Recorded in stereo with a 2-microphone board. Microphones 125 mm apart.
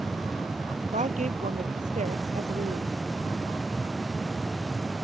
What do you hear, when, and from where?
0.9 s a woman speaking: 75° right (ahead or behind)